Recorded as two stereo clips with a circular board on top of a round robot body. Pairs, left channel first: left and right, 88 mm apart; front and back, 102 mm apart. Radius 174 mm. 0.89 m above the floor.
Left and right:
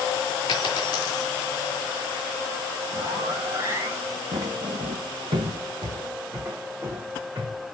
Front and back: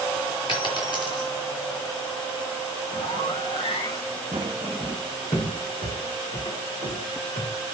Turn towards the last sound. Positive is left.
turn(degrees=-20)